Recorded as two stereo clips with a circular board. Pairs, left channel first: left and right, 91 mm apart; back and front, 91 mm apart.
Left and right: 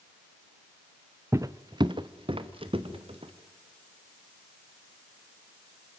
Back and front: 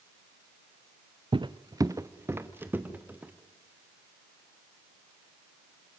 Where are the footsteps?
30° right, 0.6 m; by 3.3 s 75° right, 2 m.